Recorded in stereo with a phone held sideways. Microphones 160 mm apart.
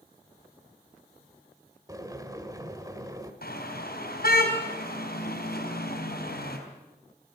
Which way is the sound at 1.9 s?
20° right (ahead or behind).